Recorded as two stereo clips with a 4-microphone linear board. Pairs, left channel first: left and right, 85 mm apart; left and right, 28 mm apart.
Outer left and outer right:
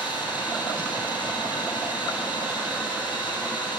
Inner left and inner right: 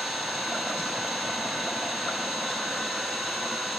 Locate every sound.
0.0 s an engine running: 20° right (ahead or behind), 6 m